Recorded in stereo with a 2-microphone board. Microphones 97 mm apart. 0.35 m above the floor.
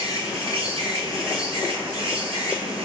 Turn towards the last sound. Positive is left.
turn(degrees=-75)  # may be behind; listen again after turning